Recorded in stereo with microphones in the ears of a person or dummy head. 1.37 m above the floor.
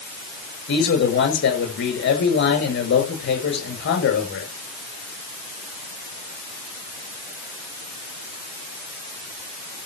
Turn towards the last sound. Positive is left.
turn(degrees=65)  # may be behind; listen again after turning